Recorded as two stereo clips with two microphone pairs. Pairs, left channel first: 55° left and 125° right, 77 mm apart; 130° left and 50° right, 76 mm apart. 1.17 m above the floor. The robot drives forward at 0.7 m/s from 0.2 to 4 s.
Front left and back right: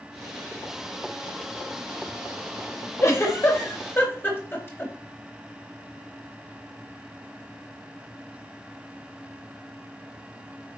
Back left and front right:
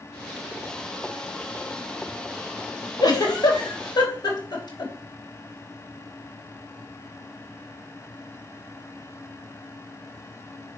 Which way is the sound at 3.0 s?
105° left.